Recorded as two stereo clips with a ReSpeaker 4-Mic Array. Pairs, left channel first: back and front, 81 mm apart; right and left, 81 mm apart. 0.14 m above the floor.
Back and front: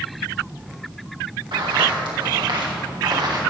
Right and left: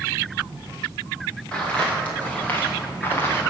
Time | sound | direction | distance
1.5 | footsteps | 15° right | 3.5 m